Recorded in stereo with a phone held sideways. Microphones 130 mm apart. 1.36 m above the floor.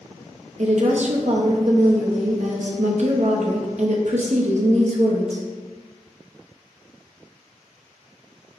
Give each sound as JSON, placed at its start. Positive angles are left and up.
{"t": 0.6, "sound": "a woman speaking", "side_deg": -60, "distance_m": 0.6}